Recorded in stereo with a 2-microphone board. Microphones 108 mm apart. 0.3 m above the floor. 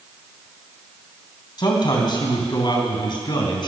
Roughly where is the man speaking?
Left.